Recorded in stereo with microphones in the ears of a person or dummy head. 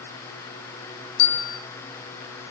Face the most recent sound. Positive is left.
turn(degrees=60)  # may be behind; listen again after turning